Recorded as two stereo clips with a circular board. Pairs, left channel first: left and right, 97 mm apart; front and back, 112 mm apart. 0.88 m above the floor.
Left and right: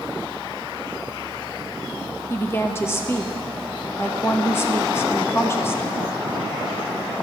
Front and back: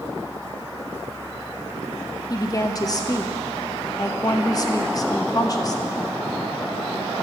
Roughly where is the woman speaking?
Ahead left.